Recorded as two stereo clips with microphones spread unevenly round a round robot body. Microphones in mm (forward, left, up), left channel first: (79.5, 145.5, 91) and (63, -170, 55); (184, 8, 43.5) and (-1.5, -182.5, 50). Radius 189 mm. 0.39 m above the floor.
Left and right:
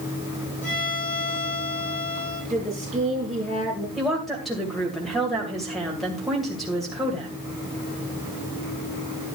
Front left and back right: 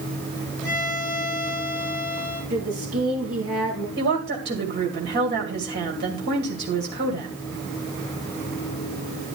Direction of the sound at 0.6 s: 140° left.